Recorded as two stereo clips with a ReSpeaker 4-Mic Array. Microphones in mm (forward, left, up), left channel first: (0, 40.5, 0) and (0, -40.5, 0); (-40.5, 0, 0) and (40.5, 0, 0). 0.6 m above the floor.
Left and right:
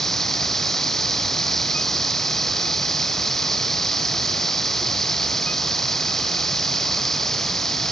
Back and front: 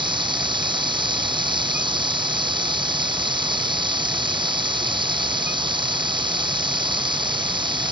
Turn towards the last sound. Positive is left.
turn(degrees=5)